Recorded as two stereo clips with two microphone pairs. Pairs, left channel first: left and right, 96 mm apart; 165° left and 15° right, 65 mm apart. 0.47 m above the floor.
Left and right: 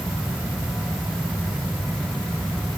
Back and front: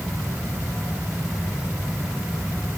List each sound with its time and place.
Only background noise.